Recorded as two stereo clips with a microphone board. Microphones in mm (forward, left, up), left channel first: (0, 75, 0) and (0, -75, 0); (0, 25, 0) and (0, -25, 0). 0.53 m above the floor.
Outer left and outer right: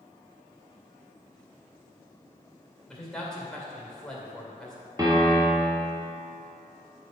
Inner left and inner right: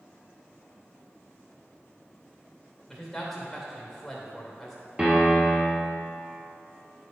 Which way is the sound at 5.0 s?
25° right (ahead or behind).